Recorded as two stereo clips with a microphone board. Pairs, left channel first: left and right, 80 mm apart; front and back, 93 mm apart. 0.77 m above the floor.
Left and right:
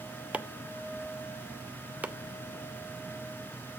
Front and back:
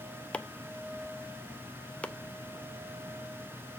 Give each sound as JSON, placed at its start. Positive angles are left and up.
{"t": 0.3, "sound": "chopping", "azimuth_deg": -50, "distance_m": 0.5}